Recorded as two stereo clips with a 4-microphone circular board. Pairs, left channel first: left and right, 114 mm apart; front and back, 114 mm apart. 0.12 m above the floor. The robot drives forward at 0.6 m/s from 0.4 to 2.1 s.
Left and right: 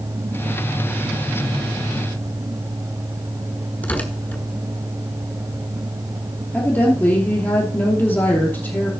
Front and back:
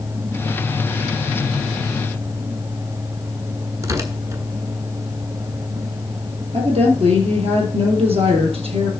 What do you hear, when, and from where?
3.8 s tearing paper: 150° left, 1.3 m
6.5 s a woman speaking: 160° left, 2.5 m